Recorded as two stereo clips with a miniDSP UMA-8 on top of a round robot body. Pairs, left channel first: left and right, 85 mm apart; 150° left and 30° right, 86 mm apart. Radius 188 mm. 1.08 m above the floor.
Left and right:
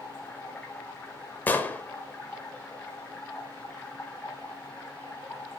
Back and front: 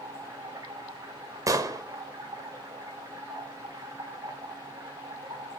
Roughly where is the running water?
Ahead.